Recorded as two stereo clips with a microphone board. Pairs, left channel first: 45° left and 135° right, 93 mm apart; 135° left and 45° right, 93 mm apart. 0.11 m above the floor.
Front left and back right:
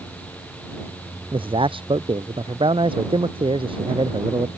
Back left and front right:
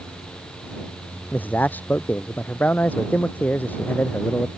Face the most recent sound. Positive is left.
turn(degrees=-155)